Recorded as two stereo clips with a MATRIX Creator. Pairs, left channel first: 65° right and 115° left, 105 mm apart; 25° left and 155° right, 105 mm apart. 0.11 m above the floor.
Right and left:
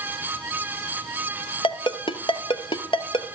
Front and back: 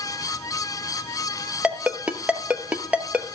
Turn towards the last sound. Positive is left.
turn(degrees=-80)